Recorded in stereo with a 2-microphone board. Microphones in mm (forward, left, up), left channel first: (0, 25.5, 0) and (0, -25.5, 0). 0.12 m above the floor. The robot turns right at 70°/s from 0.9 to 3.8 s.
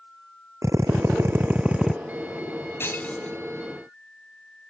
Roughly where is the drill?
Right.